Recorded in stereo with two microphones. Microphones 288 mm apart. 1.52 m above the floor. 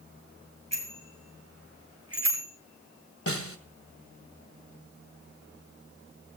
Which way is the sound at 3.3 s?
50° left (ahead or behind).